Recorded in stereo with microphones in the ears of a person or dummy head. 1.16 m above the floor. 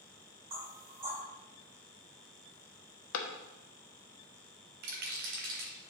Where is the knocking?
40° right (ahead or behind), 3.5 m.